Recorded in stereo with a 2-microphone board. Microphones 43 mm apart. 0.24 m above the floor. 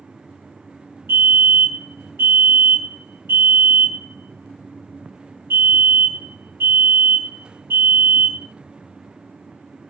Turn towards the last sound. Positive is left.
turn(degrees=-70)  # may be behind; listen again after turning